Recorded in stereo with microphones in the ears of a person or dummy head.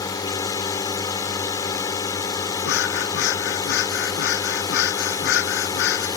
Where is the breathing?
60° left (ahead or behind).